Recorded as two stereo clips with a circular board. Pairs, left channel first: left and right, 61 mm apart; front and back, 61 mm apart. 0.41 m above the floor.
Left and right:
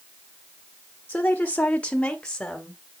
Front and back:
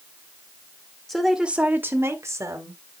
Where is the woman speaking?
70° left, 0.9 m; by 2.8 s 170° left, 1.9 m.